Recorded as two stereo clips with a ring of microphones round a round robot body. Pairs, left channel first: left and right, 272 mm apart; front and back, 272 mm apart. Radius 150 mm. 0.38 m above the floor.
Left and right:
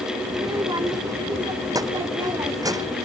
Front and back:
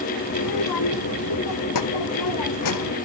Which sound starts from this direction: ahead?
A child speaking, at 0.3 s.